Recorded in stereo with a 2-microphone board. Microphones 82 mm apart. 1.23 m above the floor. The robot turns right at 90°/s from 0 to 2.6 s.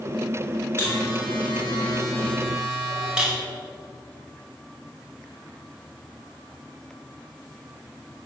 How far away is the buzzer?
About 5.5 m.